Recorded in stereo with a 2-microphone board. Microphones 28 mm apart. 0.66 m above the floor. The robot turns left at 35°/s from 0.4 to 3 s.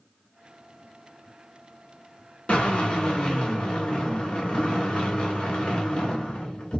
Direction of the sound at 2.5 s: 45° left (ahead or behind).